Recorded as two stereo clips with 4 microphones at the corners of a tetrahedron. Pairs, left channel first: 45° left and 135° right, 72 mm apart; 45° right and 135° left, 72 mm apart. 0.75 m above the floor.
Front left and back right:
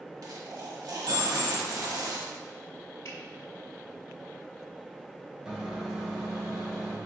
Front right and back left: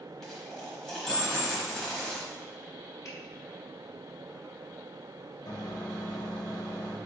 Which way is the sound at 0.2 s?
125° right.